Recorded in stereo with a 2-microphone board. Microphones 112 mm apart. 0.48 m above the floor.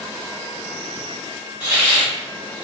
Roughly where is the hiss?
Centre.